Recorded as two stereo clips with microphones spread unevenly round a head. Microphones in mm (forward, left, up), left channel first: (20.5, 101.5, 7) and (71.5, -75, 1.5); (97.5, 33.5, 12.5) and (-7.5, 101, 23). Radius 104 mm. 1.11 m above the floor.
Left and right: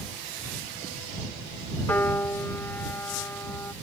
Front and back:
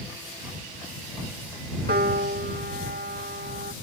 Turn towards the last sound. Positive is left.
turn(degrees=-175)